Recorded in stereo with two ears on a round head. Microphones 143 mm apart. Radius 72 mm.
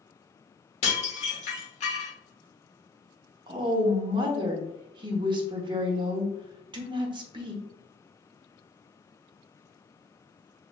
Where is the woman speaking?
30° right (ahead or behind), 0.9 m.